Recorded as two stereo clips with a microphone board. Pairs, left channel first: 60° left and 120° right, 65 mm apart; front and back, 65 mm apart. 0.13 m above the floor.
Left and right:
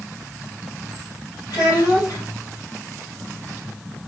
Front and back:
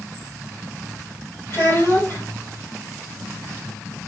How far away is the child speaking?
About 3 m.